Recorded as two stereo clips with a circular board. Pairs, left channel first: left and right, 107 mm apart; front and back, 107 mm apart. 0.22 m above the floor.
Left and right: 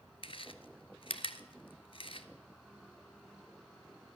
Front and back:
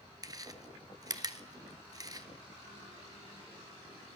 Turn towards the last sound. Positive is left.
turn(degrees=125)